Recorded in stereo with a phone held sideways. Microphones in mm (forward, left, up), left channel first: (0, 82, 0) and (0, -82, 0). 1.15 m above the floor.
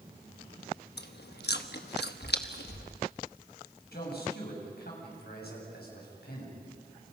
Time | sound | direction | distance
1.0 | chewing | 85° left | 1.1 m
3.9 | a man speaking | 75° left (ahead or behind) | 7 m